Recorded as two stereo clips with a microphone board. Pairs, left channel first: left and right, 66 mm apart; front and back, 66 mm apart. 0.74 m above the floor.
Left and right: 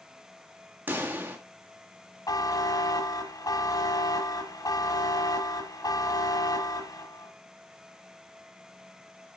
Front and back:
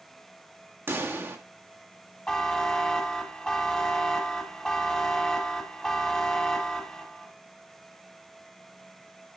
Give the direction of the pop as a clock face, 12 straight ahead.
5 o'clock.